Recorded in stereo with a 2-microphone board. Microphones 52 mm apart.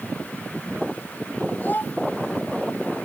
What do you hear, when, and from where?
1.6 s a child speaking: 40° left (ahead or behind)